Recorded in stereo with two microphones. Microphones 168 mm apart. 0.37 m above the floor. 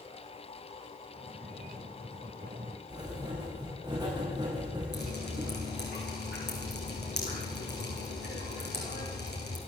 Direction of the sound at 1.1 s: 60° right (ahead or behind).